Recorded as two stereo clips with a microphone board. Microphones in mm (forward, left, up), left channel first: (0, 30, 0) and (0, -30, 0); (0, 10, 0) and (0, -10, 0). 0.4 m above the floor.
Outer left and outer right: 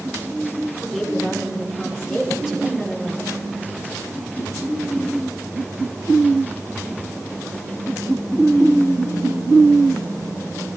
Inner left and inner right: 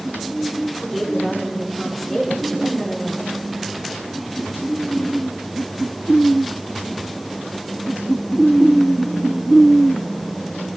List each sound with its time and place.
0.8 s a woman speaking: 10° right (ahead or behind), 8.5 m